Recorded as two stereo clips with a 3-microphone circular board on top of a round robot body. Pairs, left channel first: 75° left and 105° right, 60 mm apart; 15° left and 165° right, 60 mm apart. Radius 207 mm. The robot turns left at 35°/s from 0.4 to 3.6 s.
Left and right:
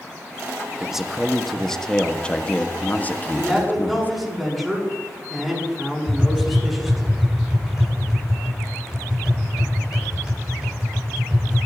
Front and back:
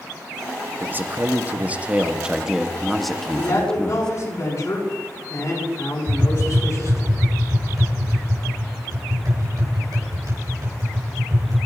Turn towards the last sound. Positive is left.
turn(degrees=175)